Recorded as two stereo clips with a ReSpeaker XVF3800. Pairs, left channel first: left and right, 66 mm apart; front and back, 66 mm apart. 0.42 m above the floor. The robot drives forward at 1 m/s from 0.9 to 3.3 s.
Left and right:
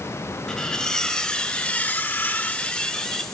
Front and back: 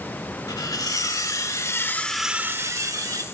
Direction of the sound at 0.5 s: 10° left.